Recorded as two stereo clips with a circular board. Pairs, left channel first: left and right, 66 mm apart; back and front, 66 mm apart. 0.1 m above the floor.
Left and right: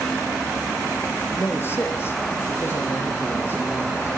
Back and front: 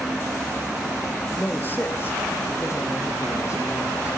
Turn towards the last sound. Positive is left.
turn(degrees=140)